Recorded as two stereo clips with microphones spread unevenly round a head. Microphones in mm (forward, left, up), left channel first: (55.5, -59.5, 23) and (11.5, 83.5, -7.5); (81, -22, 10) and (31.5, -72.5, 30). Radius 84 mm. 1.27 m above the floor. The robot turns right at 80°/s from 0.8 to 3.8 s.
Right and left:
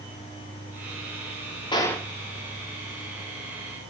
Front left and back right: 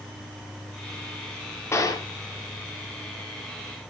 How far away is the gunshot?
About 0.8 m.